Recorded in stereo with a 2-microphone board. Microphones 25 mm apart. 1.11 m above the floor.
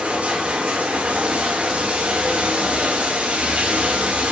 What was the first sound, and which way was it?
Running water, 65° right (ahead or behind).